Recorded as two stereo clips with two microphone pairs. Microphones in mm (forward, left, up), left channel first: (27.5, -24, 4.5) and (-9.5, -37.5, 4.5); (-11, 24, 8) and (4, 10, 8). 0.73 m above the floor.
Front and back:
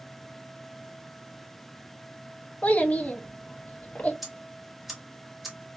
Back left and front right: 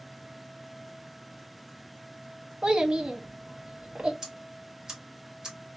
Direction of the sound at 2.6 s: 20° right.